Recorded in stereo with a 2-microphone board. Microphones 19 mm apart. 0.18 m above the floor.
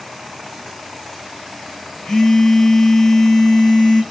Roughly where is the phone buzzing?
Left.